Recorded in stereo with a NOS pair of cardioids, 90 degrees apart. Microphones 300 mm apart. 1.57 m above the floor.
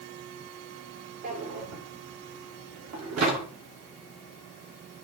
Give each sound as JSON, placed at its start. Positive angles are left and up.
{"t": 1.2, "sound": "a drawer", "azimuth_deg": -60, "distance_m": 2.5}